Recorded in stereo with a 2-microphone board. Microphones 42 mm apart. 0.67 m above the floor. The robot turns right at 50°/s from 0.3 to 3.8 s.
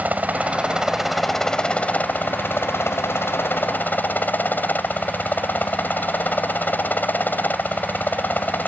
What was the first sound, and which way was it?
A helicopter, 45° right.